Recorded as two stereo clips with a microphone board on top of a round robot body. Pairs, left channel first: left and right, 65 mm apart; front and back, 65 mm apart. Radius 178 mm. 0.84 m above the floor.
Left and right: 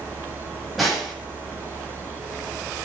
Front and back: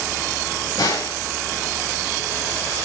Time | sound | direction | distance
0.8 | a snare drum | straight ahead | 8 m